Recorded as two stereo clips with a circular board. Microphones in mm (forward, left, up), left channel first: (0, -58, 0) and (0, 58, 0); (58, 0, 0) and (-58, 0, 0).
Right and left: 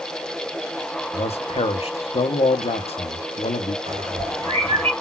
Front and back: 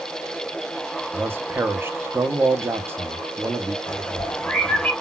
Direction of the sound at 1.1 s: 110° right.